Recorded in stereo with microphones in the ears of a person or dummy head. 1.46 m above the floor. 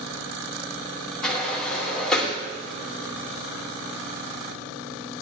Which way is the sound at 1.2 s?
5° left (ahead or behind).